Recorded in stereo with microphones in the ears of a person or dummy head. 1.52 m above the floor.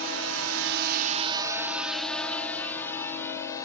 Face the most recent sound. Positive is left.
turn(degrees=20)  # may be behind; listen again after turning